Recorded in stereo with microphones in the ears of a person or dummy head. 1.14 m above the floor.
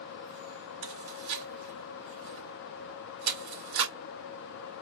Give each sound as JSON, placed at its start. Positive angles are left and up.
{"t": 0.8, "sound": "chewing", "side_deg": -75, "distance_m": 2.0}